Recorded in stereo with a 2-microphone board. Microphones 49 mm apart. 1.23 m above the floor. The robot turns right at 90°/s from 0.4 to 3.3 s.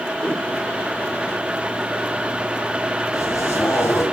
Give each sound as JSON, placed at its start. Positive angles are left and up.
{"t": 0.2, "sound": "a whoosh", "side_deg": 20, "distance_m": 4.0}
{"t": 3.1, "sound": "a zipper", "side_deg": 85, "distance_m": 7.5}